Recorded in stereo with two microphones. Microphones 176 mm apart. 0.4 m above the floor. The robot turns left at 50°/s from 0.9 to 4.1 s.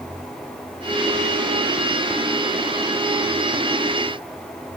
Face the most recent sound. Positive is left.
No sound to turn to.